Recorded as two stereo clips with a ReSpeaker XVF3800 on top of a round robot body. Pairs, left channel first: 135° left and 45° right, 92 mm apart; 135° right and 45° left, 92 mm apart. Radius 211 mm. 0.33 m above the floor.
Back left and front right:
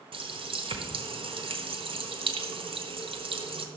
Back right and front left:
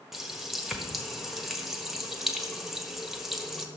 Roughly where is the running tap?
Ahead right.